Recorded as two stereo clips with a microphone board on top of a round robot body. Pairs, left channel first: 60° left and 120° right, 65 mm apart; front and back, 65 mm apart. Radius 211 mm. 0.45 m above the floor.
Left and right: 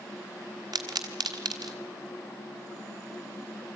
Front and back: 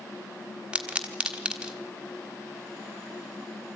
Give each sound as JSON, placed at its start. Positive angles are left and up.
{"t": 0.7, "sound": "a pop", "azimuth_deg": -105, "distance_m": 1.3}